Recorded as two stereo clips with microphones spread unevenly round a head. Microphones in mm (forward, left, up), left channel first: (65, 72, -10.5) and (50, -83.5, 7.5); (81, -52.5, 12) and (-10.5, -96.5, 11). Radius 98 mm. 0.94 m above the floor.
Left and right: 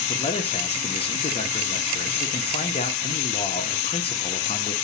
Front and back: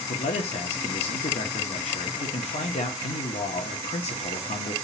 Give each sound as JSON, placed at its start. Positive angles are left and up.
{"t": 0.1, "sound": "a man speaking", "azimuth_deg": 35, "distance_m": 1.0}